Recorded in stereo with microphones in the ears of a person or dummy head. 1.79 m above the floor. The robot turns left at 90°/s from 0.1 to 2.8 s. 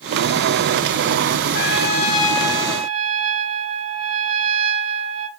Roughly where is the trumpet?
Left.